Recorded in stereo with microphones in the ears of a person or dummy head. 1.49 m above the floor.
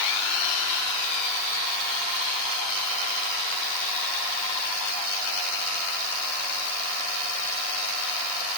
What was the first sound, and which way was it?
Only background noise.